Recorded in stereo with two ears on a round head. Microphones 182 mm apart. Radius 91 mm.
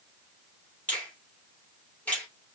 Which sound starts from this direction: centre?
A finger snap, at 0.9 s.